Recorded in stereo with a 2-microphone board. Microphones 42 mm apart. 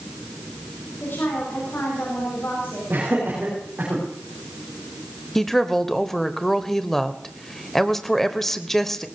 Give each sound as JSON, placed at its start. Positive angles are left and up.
{"t": 1.0, "sound": "a woman speaking", "side_deg": 60, "distance_m": 7.0}
{"t": 2.9, "sound": "laughter", "side_deg": -40, "distance_m": 6.0}
{"t": 5.3, "sound": "a woman speaking", "side_deg": 10, "distance_m": 0.9}